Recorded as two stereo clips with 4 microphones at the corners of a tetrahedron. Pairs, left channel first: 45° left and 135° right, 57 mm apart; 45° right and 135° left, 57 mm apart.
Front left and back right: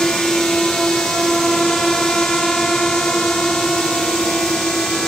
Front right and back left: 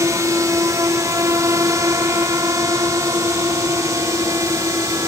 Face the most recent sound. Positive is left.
turn(degrees=130)